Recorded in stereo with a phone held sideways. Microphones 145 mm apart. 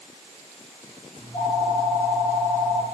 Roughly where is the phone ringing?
Left.